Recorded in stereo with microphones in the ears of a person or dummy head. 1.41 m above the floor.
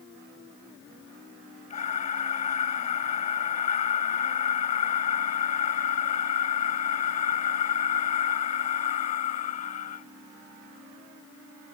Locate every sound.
1.7 s breathing: 40° left (ahead or behind)